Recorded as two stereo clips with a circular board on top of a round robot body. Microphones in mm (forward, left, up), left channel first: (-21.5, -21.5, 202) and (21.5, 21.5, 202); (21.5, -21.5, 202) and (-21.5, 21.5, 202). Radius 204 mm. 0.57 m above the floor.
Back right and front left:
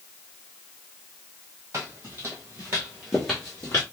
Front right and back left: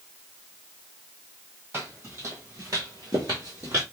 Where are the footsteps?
80° left, 1.3 m; by 3.8 s 170° right, 0.7 m.